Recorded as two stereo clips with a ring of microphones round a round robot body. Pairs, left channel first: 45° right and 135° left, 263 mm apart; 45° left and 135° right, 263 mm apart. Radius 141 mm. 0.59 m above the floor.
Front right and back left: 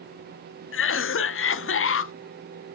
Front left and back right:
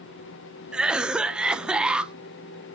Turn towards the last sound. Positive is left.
turn(degrees=-50)